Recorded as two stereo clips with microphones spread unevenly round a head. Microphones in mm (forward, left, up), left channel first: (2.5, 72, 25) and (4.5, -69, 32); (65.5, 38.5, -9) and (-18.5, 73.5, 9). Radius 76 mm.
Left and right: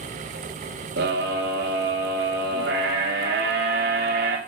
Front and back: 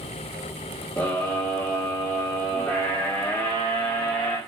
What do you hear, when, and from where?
1.0 s a scream: 105° right, 3 m